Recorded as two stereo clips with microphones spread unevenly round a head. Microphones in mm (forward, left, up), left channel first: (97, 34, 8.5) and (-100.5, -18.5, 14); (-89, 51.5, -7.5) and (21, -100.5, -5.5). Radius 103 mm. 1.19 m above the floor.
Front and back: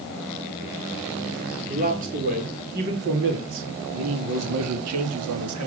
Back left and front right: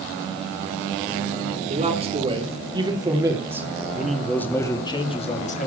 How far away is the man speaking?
About 4 m.